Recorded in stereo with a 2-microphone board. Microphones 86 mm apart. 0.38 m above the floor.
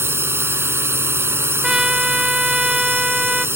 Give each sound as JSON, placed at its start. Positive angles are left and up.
{"t": 0.0, "sound": "a drone", "side_deg": -30}
{"t": 1.6, "sound": "a trumpet", "side_deg": -5}